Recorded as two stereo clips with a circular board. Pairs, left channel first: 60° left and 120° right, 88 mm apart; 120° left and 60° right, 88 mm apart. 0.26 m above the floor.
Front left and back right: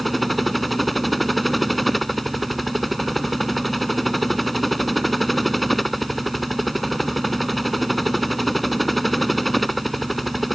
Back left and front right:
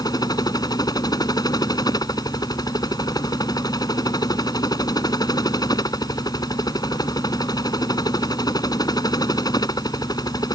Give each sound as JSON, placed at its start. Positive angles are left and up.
{"t": 0.0, "sound": "a helicopter", "azimuth_deg": 150}